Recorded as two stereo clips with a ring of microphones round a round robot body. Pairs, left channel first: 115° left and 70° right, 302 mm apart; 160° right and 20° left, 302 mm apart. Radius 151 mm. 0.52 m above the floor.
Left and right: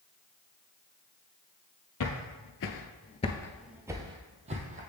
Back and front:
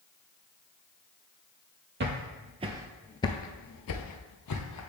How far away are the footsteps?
About 0.9 m.